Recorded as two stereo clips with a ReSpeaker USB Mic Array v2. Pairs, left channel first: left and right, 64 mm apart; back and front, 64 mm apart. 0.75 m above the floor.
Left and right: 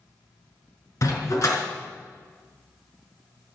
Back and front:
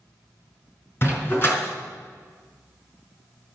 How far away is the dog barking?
About 4.5 m.